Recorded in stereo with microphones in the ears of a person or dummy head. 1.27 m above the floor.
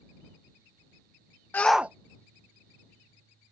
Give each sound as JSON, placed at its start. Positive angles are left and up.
{"t": 1.5, "sound": "a shout", "side_deg": 10}